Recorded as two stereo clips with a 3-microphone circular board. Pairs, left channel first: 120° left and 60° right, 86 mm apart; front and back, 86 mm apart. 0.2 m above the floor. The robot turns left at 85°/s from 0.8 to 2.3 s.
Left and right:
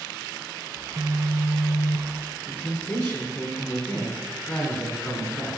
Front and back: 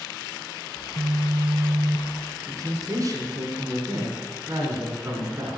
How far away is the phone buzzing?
About 1.1 m.